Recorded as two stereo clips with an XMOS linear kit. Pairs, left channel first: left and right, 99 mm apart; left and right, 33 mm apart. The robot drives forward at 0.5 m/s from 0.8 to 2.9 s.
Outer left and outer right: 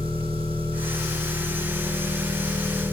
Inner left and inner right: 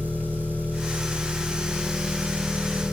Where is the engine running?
65° right (ahead or behind), 8 m; by 2.9 s 60° right (ahead or behind), 8.5 m.